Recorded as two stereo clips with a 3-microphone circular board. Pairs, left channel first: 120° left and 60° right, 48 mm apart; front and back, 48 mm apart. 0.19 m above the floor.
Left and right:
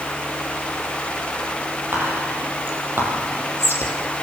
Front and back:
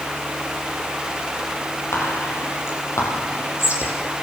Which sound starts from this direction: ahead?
Whispering, at 1.9 s.